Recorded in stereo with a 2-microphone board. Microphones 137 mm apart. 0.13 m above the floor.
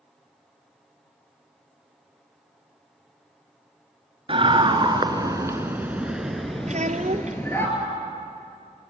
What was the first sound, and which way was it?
A scream, 40° right (ahead or behind).